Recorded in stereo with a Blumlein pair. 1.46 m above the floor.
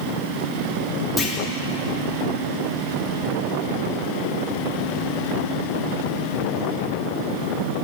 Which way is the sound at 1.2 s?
5° left.